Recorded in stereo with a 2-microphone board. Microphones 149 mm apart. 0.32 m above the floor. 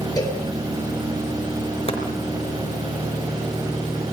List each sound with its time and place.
0.2 s a cowbell: 25° left (ahead or behind), 6 m
1.9 s chopping: 40° left (ahead or behind), 4 m